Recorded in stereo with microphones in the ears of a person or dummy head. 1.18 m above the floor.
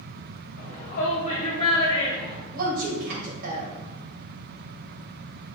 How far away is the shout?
About 1.8 m.